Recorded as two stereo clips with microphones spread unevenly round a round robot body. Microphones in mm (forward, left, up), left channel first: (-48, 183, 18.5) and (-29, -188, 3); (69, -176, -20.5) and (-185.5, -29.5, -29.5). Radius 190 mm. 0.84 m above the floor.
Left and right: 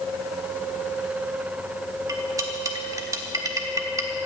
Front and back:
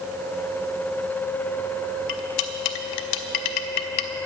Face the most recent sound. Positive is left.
turn(degrees=-5)